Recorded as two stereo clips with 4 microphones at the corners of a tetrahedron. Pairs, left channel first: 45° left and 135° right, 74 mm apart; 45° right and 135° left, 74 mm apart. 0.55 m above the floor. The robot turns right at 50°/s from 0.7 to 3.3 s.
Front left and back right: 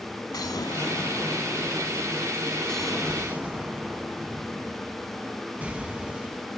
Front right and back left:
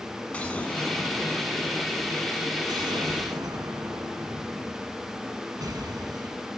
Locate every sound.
0.3 s an explosion: 25° left, 1.0 m; by 6.6 s 155° left, 1.0 m